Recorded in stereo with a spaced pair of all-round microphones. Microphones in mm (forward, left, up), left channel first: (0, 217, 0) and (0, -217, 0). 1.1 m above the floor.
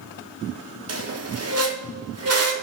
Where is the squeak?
35° right (ahead or behind), 0.6 m.